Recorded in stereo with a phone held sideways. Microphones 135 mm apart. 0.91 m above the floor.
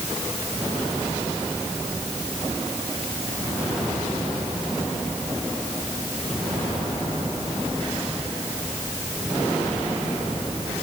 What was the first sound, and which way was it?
Only background noise.